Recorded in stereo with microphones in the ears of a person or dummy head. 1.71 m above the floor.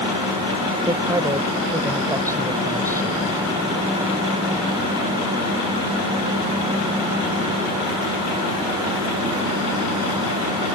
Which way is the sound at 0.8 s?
15° right (ahead or behind).